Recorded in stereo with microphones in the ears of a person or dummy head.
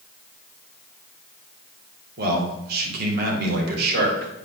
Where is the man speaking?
60° right (ahead or behind), 3 m.